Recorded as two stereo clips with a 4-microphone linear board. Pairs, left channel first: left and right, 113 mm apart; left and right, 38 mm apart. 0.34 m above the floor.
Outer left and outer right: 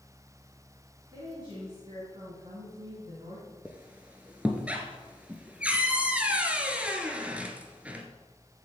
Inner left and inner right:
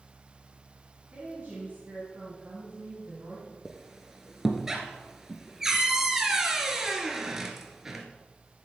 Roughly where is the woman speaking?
Right.